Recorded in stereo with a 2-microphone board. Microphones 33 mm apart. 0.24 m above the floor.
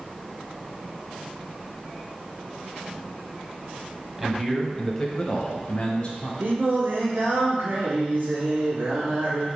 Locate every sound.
4.2 s a man speaking: 10° right (ahead or behind), 1.2 m; by 6.3 s 30° left (ahead or behind), 1.3 m
6.4 s singing: 75° right (ahead or behind), 2.5 m